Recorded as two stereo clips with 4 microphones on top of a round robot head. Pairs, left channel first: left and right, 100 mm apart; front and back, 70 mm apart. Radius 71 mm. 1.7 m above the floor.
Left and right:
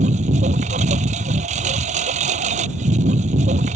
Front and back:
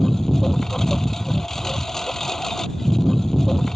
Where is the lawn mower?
90° right.